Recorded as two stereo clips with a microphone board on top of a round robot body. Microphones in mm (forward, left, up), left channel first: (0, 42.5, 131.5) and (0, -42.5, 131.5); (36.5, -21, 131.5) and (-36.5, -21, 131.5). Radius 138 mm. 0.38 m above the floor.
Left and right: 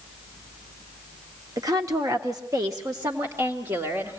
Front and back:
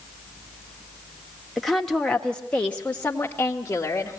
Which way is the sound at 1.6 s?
90° right.